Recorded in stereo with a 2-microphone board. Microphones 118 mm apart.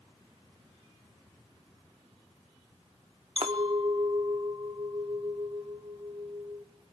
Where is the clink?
55° right (ahead or behind), 1.1 m.